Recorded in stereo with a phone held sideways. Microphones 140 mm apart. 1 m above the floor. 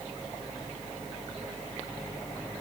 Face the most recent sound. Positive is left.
No sound to turn to.